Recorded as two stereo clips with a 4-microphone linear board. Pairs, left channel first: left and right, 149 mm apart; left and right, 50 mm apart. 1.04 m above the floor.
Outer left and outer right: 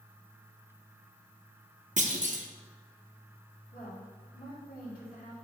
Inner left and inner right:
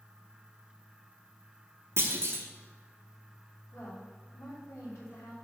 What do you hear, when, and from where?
2.0 s a clunk: 55° right (ahead or behind), 0.8 m
3.7 s a woman speaking: 80° left, 2.5 m